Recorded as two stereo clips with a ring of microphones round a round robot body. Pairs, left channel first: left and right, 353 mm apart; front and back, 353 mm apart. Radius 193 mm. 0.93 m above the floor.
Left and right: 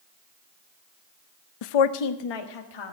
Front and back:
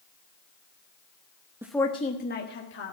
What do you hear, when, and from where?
1.6 s a woman speaking: 100° left, 0.5 m; by 2.9 s 60° left, 1.7 m